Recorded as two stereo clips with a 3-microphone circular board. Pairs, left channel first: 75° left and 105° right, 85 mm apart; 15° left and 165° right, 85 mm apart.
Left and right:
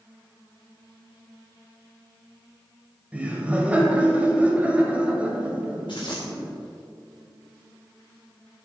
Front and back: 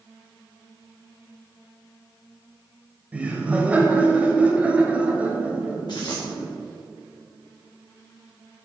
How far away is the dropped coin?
About 2.5 m.